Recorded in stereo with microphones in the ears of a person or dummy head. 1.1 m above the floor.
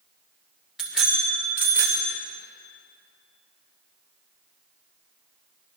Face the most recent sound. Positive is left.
turn(degrees=-15)  # may be behind; listen again after turning